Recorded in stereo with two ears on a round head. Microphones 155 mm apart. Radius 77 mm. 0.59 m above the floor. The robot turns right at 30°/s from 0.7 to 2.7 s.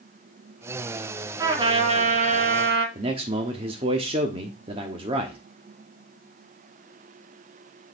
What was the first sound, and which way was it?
A trumpet, 160° right.